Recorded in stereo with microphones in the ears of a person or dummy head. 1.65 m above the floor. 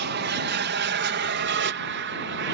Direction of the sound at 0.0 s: 55° right (ahead or behind).